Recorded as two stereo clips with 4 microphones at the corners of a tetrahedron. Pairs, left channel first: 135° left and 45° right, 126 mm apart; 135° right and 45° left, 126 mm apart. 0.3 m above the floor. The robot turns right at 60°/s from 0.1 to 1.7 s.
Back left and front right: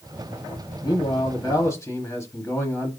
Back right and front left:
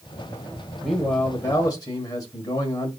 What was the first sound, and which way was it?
A man speaking, 135° left.